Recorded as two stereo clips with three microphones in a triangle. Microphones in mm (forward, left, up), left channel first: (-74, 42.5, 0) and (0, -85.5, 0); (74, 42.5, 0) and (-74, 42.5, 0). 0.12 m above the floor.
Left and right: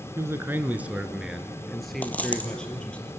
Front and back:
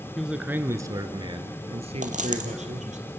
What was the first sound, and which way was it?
A man speaking, 95° right.